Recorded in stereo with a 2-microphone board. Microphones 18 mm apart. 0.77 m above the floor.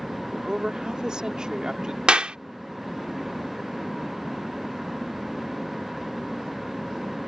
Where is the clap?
80° right.